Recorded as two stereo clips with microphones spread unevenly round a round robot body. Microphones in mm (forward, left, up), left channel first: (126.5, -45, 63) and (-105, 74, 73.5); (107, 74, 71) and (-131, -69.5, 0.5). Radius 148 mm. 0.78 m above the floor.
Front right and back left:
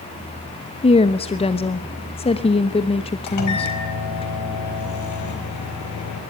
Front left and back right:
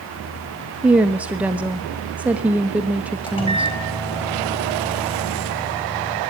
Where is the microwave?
45° right, 4 m.